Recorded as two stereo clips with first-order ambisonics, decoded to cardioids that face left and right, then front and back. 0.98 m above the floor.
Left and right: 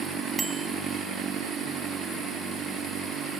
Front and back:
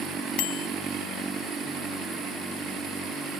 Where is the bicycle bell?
10° right.